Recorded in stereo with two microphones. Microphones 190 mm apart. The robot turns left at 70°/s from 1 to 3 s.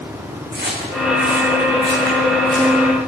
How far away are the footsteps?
About 3.5 m.